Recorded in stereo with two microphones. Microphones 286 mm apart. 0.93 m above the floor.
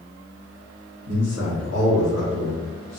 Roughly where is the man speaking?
Right.